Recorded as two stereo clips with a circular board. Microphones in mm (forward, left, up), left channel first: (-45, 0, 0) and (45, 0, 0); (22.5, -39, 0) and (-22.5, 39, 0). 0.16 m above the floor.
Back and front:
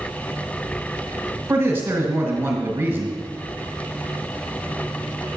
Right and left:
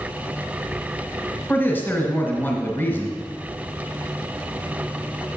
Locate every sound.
1.5 s a man speaking: 25° right, 1.4 m